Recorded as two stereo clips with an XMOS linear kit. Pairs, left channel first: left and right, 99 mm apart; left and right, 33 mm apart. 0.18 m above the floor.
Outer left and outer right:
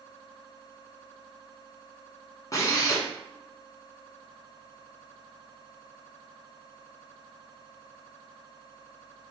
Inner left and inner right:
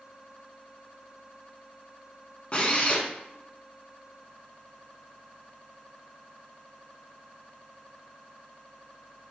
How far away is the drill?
About 0.8 m.